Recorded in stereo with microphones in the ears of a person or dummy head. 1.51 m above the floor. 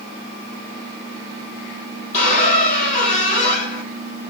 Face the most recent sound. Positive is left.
turn(degrees=35)  # may be behind; listen again after turning